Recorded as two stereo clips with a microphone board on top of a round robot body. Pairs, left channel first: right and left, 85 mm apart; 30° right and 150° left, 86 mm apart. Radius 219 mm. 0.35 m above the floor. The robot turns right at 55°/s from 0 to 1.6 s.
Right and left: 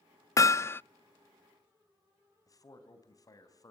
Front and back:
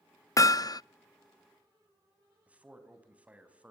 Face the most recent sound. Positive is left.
turn(degrees=-135)